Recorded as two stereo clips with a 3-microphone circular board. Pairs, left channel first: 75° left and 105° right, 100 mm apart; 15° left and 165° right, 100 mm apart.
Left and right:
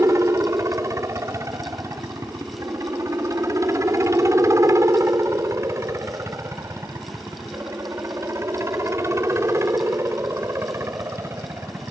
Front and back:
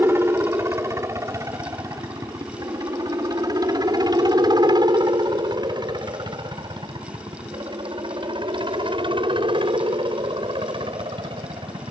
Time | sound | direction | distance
0.0 | a helicopter | 125° right | ?